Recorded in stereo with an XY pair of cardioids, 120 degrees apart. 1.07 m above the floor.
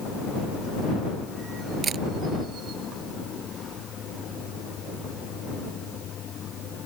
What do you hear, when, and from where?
1.8 s a camera shutter: 40° right